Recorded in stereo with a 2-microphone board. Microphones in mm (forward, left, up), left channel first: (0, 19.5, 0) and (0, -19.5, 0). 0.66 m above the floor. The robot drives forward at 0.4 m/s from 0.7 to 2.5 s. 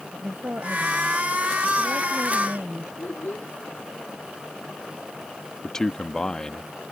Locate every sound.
0.1 s a woman speaking: 80° right; by 2.9 s 70° right (ahead or behind)
3.0 s a child speaking: 55° left (ahead or behind)
5.6 s a man speaking: 20° left (ahead or behind)